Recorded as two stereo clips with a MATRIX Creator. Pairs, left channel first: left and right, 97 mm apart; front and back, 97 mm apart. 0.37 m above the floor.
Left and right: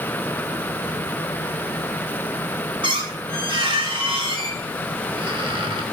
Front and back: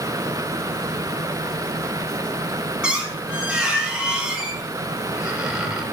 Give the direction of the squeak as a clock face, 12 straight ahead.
3 o'clock.